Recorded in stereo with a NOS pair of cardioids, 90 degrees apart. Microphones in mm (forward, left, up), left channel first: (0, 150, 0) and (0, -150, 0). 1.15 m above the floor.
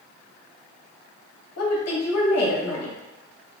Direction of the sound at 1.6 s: 50° left.